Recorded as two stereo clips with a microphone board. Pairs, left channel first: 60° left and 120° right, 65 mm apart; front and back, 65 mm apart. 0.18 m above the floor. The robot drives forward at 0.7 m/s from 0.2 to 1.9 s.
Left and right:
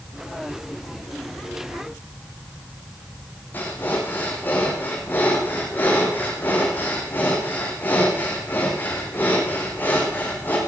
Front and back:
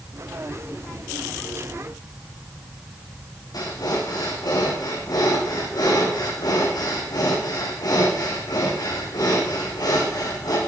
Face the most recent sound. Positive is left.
turn(degrees=0)